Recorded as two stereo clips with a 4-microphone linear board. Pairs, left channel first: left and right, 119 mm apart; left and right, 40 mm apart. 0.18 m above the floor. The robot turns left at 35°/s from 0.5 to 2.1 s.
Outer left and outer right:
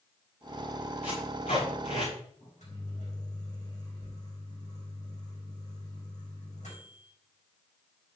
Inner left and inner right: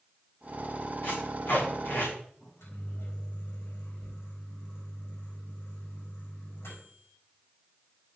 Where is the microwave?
80° left, 6.5 m.